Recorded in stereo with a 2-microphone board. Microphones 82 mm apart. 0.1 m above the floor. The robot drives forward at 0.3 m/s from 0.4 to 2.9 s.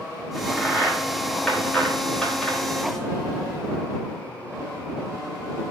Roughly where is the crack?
Centre.